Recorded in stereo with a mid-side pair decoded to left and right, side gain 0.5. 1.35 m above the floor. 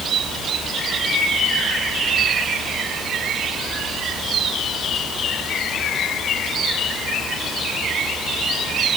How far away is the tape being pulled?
No tape being pulled in this recording.